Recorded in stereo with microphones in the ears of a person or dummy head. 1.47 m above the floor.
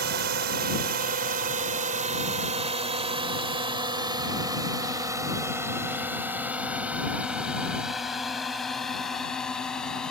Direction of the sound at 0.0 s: 55° right (ahead or behind).